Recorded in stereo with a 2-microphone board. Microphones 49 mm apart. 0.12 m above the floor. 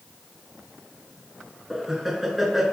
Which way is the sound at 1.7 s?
5° right (ahead or behind).